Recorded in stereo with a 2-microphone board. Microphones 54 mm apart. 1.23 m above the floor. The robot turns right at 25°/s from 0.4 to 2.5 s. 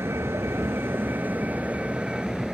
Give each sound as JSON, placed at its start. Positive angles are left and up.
{"t": 0.0, "sound": "a vehicle", "azimuth_deg": -60}